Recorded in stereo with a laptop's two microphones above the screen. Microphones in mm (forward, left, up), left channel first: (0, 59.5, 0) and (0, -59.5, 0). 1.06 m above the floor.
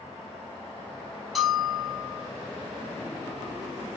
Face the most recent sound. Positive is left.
turn(degrees=0)  # may be behind; listen again after turning